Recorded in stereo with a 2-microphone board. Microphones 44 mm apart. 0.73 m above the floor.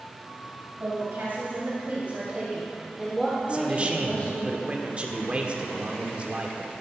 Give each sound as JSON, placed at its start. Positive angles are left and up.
{"t": 0.8, "sound": "a woman speaking", "side_deg": -55, "distance_m": 4.0}
{"t": 3.5, "sound": "a man speaking", "side_deg": -30, "distance_m": 1.5}